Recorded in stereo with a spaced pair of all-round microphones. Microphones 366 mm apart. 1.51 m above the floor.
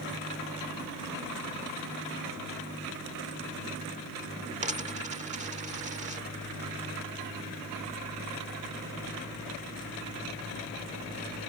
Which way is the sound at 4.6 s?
20° right (ahead or behind).